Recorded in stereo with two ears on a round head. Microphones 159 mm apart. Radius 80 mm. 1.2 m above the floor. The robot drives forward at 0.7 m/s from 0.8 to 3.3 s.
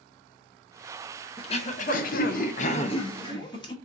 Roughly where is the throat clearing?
Left.